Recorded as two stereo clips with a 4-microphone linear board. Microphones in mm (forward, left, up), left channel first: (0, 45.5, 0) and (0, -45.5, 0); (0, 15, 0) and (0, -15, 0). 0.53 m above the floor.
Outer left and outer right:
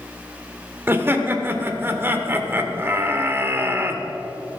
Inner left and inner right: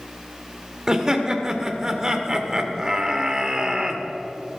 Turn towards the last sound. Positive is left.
turn(degrees=-25)  # may be behind; listen again after turning